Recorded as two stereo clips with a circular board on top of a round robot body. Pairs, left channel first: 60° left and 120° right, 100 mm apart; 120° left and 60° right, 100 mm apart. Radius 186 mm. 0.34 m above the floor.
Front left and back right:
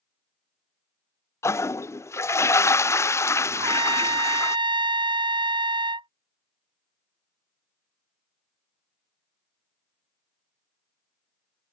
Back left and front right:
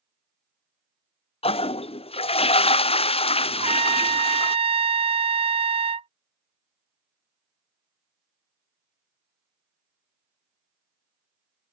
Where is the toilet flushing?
120° left.